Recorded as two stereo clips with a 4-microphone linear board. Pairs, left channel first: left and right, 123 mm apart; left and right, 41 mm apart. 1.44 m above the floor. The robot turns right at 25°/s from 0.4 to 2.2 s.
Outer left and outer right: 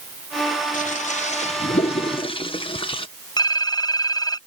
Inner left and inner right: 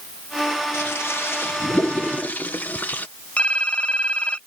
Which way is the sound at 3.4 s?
30° left (ahead or behind).